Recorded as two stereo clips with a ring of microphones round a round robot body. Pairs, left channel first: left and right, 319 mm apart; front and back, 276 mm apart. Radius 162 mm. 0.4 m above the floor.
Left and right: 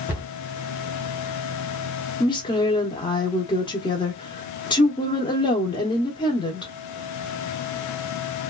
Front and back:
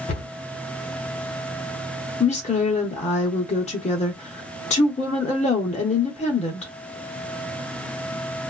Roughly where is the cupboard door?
Ahead.